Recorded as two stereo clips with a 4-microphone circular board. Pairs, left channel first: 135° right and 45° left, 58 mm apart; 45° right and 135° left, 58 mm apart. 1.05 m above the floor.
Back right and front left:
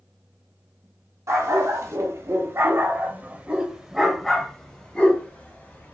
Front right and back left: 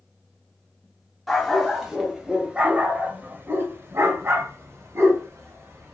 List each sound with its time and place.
1.3 s a dog barking: 45° left, 1.6 m; by 5.9 s 170° left, 1.8 m